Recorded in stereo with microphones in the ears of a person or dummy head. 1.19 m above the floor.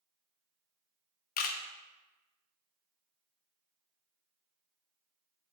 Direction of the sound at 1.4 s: 50° left (ahead or behind).